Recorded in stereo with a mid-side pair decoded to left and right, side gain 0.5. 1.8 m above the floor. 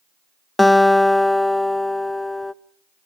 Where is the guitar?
10° left, 0.9 m.